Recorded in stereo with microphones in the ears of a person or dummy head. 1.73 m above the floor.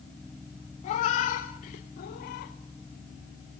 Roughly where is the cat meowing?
Left.